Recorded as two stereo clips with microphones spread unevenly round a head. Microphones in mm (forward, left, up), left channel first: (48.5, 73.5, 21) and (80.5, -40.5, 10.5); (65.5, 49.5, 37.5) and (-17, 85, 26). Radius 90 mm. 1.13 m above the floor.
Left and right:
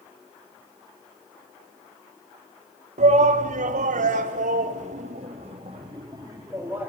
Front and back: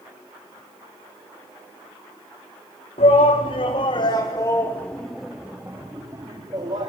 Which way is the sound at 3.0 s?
60° right.